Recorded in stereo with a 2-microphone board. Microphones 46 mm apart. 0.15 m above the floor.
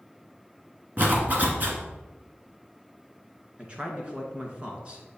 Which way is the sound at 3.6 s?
25° right (ahead or behind).